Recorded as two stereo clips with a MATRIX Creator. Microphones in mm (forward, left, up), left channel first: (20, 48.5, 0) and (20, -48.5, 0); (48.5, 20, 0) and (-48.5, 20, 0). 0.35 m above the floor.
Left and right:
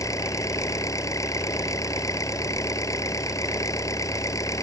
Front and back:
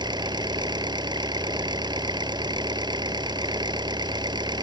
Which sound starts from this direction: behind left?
An engine running, at 0.0 s.